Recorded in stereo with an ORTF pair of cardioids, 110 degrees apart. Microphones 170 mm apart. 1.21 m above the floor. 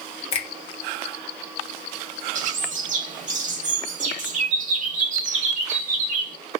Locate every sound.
0.3 s a finger snap: 35° left, 1.5 m
2.4 s a bird: 45° right, 1.5 m